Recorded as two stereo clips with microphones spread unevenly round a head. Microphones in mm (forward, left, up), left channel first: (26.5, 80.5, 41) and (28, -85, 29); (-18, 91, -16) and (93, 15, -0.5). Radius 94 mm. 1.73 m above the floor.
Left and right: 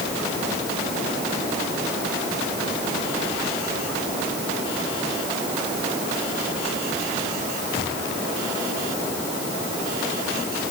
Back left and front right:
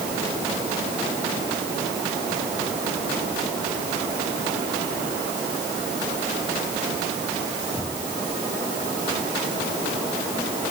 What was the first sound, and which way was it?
Only background noise.